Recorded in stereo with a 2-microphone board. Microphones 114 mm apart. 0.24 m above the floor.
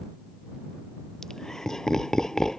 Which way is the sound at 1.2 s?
5° left (ahead or behind).